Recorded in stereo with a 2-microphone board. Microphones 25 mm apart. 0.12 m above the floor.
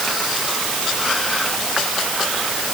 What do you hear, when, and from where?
Only background noise.